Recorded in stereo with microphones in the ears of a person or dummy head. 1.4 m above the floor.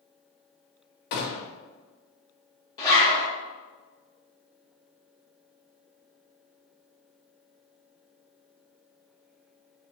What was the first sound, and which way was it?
A gunshot, 55° left (ahead or behind).